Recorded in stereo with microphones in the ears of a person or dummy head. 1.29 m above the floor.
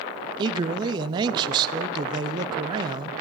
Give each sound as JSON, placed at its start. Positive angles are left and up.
{"t": 0.4, "sound": "a man speaking", "side_deg": -25, "distance_m": 0.5}